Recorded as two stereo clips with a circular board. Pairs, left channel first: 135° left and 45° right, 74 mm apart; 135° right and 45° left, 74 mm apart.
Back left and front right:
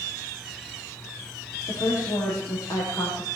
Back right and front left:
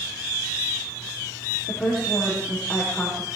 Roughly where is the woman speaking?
Behind left.